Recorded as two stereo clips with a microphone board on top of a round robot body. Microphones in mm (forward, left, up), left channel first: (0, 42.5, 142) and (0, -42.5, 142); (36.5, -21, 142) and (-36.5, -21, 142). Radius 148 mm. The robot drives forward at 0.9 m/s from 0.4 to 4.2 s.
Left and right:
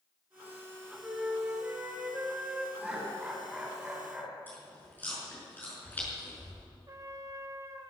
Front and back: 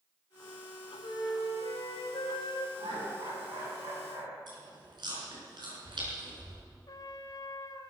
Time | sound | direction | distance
1.0 | a flute | 10° right | 3.5 m
2.8 | laughter | 175° right | 6 m
4.5 | chewing | 160° left | 5.5 m
6.9 | a trumpet | 40° right | 1.7 m